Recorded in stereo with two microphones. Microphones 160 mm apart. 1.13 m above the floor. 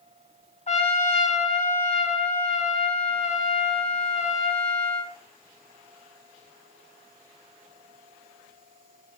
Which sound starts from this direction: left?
A trumpet, at 0.7 s.